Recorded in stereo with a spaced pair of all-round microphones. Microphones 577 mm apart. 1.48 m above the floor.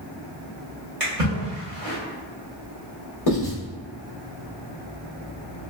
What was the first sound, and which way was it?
A splash, 70° right (ahead or behind).